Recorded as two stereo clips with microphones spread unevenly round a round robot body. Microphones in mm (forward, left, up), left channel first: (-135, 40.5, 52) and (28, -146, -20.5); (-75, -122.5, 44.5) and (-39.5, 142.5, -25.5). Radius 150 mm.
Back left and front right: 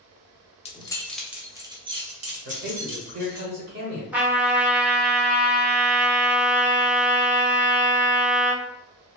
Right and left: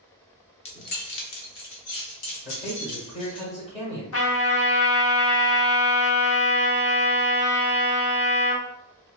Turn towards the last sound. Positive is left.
turn(degrees=-105)